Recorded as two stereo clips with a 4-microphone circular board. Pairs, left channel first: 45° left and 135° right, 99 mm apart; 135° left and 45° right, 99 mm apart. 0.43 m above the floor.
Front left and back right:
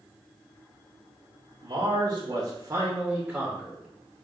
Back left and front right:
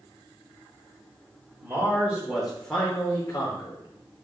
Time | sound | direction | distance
1.6 | a man speaking | 105° right | 1.2 m